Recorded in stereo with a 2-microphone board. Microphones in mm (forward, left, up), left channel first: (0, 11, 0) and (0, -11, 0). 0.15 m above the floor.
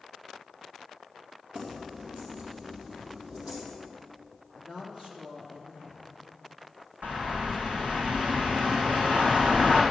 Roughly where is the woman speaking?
Right.